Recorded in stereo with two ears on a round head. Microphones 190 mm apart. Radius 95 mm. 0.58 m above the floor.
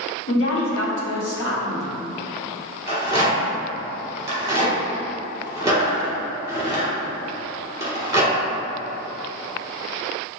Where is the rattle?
15° right (ahead or behind), 1.7 m.